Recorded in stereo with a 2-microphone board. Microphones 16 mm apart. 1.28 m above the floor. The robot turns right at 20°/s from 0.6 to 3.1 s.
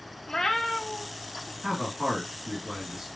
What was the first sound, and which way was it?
A cat meowing, 40° left (ahead or behind).